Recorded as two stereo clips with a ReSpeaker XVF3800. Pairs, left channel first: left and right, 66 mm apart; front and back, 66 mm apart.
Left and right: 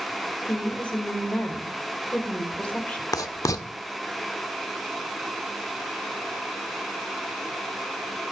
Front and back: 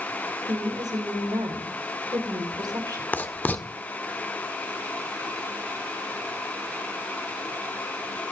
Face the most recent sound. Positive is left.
turn(degrees=60)